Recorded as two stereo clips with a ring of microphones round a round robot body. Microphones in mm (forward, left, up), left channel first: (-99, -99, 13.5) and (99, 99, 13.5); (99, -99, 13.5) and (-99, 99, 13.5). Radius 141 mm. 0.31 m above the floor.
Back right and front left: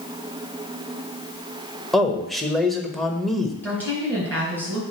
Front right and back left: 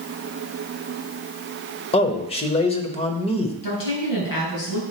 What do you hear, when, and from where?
1.9 s a man speaking: 45° right, 0.8 m
3.6 s a woman speaking: 50° right, 3.5 m